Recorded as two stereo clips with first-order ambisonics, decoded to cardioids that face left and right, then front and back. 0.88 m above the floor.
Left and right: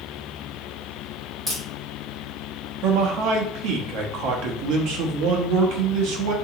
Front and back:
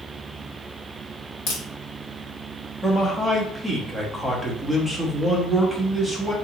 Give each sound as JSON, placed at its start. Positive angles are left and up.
{"t": 1.5, "sound": "a crack", "azimuth_deg": -5, "distance_m": 1.9}
{"t": 2.8, "sound": "a man speaking", "azimuth_deg": -85, "distance_m": 0.8}